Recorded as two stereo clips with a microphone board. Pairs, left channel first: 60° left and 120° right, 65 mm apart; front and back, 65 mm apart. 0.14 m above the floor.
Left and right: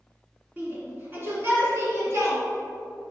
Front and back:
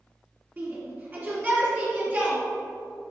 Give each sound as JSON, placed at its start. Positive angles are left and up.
{"t": 0.6, "sound": "a shout", "azimuth_deg": -160, "distance_m": 2.0}